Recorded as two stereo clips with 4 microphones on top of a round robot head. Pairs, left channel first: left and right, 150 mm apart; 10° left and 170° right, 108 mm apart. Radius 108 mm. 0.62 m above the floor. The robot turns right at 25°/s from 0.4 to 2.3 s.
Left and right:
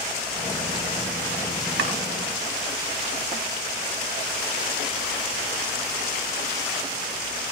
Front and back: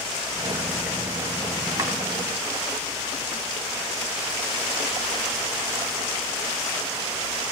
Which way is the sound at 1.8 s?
105° right.